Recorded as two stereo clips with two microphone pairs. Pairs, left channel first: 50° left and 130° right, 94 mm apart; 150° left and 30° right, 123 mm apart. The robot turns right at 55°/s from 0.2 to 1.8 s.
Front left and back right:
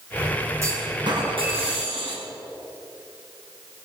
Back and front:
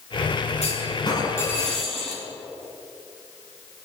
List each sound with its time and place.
0.6 s a clunk: 175° left, 4.5 m; by 2.2 s 120° right, 4.5 m